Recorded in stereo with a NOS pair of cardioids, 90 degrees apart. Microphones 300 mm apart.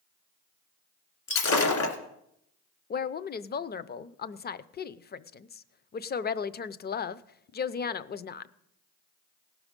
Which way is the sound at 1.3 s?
70° left.